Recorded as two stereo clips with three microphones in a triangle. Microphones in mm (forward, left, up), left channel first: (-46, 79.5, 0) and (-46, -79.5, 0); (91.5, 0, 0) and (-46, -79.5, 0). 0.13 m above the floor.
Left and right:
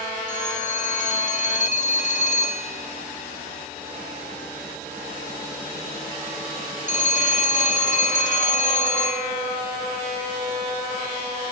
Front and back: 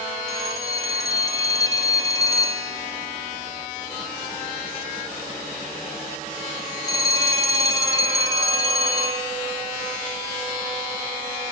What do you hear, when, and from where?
0.3 s a phone ringing: 90° left, 1.4 m